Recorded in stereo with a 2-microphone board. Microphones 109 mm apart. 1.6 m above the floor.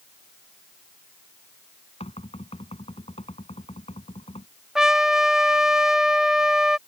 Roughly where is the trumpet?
Centre.